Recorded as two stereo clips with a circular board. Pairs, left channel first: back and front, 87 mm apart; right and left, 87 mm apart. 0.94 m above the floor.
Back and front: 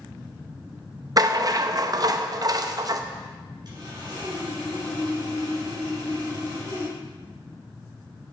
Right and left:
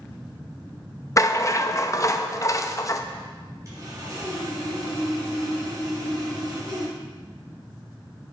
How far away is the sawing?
About 3.5 m.